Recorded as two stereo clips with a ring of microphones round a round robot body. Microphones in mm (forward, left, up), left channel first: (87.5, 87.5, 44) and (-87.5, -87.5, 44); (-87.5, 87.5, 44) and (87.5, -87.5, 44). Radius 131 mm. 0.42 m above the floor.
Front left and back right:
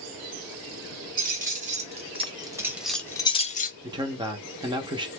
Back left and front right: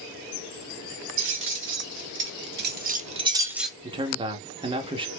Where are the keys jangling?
80° right, 1.9 m; by 3.7 s 45° left, 0.9 m.